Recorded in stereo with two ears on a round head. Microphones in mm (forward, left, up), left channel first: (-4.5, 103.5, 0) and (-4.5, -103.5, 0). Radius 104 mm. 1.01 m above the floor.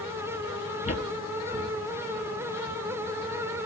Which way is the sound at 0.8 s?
30° left (ahead or behind).